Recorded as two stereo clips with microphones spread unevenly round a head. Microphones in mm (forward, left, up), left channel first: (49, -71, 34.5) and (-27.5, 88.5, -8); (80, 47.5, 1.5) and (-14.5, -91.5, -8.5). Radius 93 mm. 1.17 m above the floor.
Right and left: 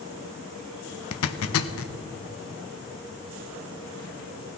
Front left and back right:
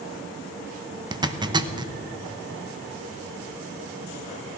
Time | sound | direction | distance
1.1 | a zipper | 60° right | 0.9 m